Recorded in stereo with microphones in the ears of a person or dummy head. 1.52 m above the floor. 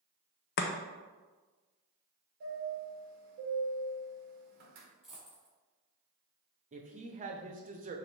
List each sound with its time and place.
0.6 s chopping: 50° left (ahead or behind), 0.5 m
2.4 s a chime: 50° right (ahead or behind), 1.5 m
5.0 s a dropped coin: centre (ahead or behind), 1.4 m
6.7 s a woman speaking: 35° right (ahead or behind), 0.7 m